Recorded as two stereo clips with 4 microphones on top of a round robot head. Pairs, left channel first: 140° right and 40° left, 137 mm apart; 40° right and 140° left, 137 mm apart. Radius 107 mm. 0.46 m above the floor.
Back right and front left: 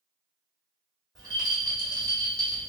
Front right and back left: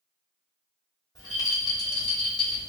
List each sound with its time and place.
1.1 s a rattle: 5° right, 1.6 m